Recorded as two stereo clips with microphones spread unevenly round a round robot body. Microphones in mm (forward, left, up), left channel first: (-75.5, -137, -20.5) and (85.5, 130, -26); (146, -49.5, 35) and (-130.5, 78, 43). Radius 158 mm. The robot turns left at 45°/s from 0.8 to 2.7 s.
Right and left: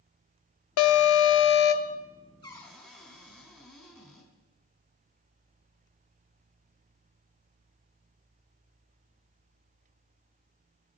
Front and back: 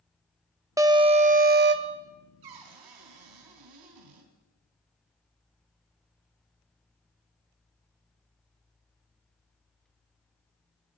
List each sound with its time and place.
0.8 s an alarm: 130° right, 0.8 m; by 2.0 s straight behind, 0.8 m
2.4 s a cupboard door: 165° left, 3.5 m; by 4.3 s 150° left, 3.5 m